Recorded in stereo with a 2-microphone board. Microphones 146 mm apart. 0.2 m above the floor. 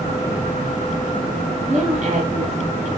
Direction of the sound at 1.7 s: 50° right (ahead or behind).